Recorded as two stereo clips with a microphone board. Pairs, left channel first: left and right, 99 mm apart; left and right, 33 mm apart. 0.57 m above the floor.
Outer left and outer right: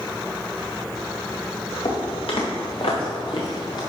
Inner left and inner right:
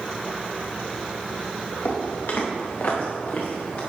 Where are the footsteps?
80° left, 3.5 m; by 3.8 s 50° left (ahead or behind), 3.5 m.